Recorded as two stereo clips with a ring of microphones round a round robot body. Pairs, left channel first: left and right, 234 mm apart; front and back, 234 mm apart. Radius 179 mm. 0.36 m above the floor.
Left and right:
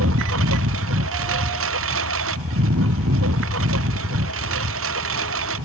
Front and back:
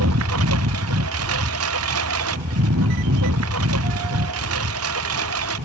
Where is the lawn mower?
140° right.